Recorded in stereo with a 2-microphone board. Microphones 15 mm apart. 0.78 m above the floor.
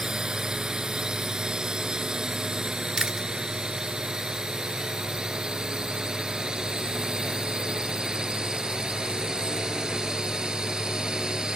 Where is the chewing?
45° right (ahead or behind).